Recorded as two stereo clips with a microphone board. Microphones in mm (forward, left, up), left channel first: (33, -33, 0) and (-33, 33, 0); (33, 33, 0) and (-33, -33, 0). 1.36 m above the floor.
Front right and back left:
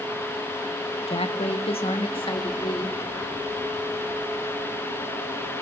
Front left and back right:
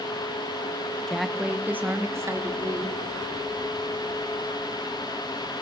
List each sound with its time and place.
1.1 s a woman speaking: 40° right, 1.5 m; by 3.0 s 80° right, 3 m